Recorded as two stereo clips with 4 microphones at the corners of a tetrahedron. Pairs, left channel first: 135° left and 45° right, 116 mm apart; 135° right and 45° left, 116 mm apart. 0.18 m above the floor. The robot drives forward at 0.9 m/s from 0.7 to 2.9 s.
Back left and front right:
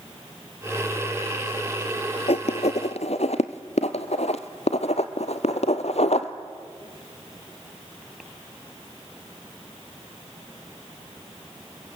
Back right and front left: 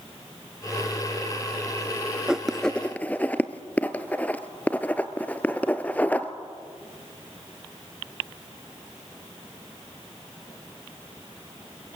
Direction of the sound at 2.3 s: 125° left.